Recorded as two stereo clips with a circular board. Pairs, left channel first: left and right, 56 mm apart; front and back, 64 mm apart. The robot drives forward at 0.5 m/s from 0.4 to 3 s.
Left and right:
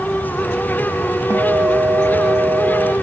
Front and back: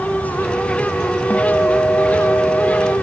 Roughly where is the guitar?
Ahead right.